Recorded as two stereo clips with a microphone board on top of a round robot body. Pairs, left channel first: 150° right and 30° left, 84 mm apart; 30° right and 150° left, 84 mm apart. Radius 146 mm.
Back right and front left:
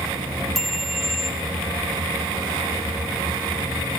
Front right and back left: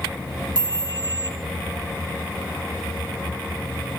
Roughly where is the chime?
Behind left.